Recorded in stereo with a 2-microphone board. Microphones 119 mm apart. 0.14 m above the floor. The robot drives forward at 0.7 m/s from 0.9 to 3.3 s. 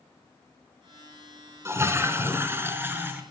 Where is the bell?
No bell in this recording.